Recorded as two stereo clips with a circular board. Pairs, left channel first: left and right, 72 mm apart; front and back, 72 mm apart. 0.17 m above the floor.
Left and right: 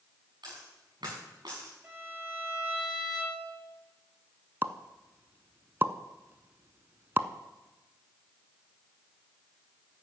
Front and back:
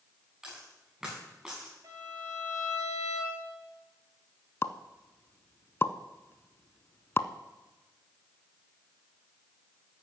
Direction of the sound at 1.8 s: 150° right.